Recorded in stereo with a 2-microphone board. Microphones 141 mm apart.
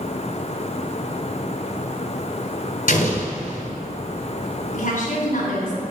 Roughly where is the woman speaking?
Left.